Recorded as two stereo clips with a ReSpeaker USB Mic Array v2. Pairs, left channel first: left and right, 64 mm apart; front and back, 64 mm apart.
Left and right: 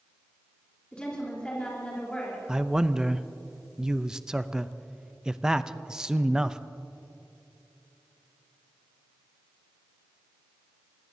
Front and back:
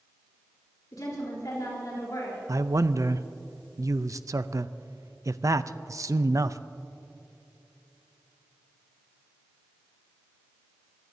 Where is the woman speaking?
20° left, 3.5 m.